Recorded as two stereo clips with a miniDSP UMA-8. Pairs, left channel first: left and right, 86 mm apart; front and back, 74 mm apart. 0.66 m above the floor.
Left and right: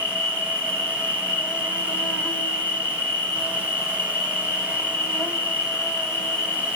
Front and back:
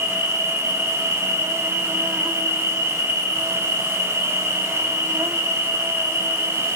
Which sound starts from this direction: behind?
An insect, at 0.0 s.